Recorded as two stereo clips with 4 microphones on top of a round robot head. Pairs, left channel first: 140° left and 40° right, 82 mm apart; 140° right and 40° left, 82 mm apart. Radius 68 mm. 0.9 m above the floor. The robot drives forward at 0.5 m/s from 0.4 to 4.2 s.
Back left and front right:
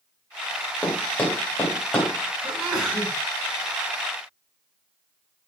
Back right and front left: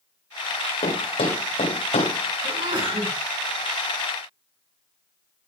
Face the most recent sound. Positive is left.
turn(degrees=50)